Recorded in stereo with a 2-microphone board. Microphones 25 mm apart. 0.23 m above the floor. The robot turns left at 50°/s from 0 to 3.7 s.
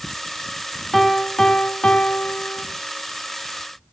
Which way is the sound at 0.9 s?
175° left.